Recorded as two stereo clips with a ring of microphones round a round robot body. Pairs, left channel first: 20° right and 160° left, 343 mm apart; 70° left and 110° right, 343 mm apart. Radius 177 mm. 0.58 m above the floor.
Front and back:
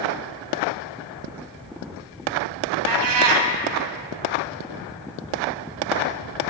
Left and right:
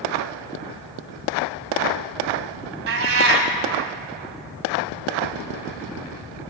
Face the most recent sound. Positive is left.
turn(degrees=-165)